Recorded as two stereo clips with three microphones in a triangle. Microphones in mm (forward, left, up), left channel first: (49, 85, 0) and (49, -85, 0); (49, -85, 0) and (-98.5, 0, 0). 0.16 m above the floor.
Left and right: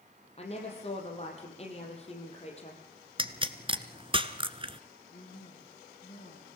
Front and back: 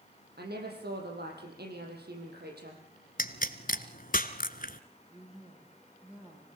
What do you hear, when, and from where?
0.4 s a woman speaking: 140° left, 5.5 m
3.2 s a pop: 40° right, 1.2 m
5.1 s a woman speaking: 70° left, 7 m